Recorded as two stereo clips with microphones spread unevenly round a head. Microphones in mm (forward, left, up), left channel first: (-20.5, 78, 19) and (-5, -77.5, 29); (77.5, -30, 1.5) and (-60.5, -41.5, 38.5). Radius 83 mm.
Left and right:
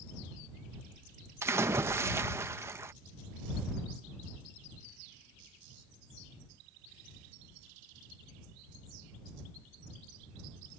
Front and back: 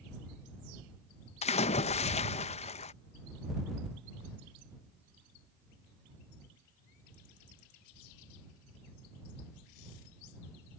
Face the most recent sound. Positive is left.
turn(degrees=-10)